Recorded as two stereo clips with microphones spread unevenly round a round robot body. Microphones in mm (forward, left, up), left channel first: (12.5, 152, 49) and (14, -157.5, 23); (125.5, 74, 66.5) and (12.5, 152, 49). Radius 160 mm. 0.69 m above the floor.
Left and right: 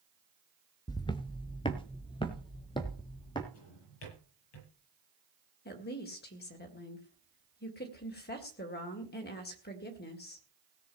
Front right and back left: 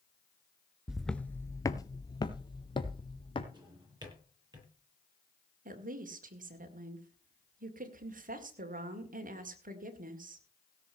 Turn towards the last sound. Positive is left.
turn(degrees=150)